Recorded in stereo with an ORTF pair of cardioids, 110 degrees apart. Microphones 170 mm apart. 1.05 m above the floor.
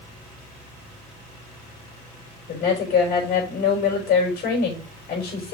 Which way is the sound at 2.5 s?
70° left.